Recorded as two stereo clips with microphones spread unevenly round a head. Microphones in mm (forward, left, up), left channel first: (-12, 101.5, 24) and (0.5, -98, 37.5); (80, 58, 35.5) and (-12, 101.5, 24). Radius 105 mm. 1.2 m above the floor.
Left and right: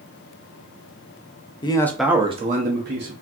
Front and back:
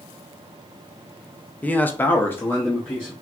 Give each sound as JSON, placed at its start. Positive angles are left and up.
{"t": 1.6, "sound": "a man speaking", "azimuth_deg": 50, "distance_m": 0.7}